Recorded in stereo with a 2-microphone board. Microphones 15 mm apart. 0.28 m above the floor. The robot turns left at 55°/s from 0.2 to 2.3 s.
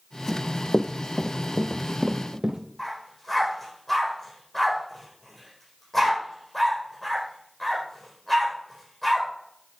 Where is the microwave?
No microwave in this recording.